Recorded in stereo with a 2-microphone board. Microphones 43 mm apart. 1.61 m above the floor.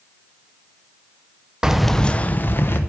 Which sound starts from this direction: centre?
Keys jangling, at 1.6 s.